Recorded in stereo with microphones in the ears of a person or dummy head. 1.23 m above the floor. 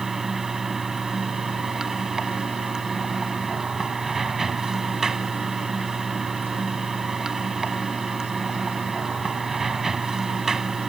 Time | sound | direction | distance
0.0 | running water | 5° right (ahead or behind) | ?